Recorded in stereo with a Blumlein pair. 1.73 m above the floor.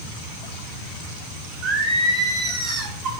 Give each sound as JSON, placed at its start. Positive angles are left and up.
{"t": 1.6, "sound": "singing", "azimuth_deg": -30, "distance_m": 4.0}